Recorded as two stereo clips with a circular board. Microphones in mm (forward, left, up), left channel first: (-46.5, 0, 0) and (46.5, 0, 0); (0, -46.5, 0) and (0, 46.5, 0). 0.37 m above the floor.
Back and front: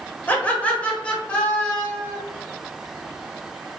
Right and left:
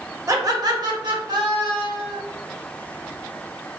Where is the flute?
I don't hear a flute.